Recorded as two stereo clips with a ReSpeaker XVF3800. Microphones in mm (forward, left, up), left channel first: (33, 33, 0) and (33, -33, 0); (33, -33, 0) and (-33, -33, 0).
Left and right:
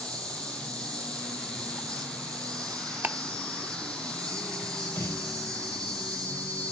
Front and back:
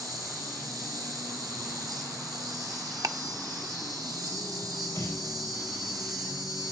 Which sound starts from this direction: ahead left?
A snare drum, at 5.0 s.